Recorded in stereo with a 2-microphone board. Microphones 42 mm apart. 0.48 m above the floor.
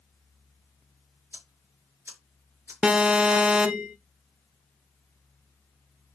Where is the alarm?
20° right (ahead or behind), 0.9 m.